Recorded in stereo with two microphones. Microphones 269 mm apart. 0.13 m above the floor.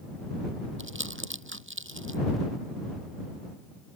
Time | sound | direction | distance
0.8 | crumpling | 50° right (ahead or behind) | ?